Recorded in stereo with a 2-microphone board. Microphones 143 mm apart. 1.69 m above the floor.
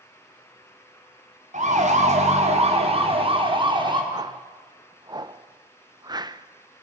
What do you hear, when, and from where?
1.5 s a siren: 60° right (ahead or behind), 3.5 m; by 4.0 s 30° right (ahead or behind), 4 m
4.1 s a whoosh: 30° right (ahead or behind), 0.8 m